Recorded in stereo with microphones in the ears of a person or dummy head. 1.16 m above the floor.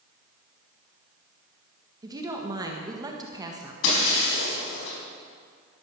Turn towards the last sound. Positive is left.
turn(degrees=75)  # may be behind; listen again after turning